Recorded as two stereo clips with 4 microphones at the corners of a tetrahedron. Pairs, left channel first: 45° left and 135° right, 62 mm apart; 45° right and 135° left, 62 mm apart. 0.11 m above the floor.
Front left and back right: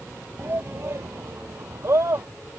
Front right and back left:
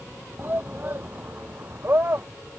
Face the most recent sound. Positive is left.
turn(degrees=-170)